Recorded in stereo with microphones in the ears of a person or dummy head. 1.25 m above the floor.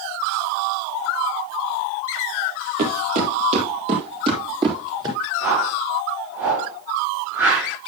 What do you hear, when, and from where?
2.8 s footsteps: 50° right (ahead or behind), 2 m; by 5.2 s 25° right (ahead or behind), 3.5 m
5.4 s a whoosh: 10° right (ahead or behind), 7 m